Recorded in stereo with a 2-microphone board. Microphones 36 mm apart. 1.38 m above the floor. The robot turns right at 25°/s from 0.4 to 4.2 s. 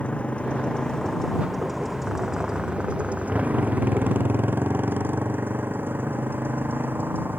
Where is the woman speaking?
I don't hear a woman speaking.